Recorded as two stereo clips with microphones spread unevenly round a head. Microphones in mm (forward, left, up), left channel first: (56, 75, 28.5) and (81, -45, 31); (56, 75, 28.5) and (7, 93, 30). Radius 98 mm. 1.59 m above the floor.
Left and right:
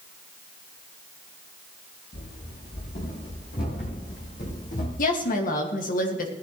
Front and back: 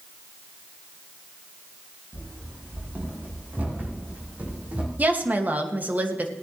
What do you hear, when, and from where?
2.1 s running footsteps: 115° left, 5 m; by 4.9 s 100° left, 3.5 m
5.0 s a woman speaking: 105° left, 2 m